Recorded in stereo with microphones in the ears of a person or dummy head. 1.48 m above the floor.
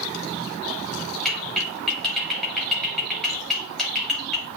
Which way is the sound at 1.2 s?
5° left (ahead or behind).